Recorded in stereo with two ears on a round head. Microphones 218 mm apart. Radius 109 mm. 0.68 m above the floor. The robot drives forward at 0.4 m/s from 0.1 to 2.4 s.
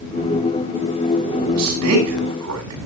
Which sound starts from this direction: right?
A man speaking, at 1.5 s.